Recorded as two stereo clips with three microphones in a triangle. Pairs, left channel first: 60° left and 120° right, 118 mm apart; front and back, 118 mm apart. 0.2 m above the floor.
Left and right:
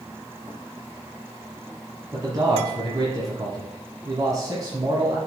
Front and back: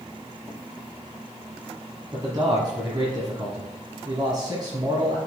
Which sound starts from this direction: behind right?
A man speaking, at 2.1 s.